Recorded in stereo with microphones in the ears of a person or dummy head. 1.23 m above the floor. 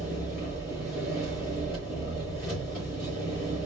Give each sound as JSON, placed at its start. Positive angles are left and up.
{"t": 0.0, "sound": "an engine running", "side_deg": 5, "distance_m": 3.5}